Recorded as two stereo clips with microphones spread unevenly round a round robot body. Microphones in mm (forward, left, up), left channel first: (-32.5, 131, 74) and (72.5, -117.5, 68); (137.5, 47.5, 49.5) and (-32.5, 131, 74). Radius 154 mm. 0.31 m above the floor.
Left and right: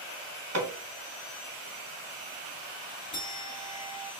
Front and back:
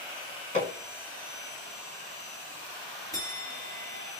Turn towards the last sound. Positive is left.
turn(degrees=40)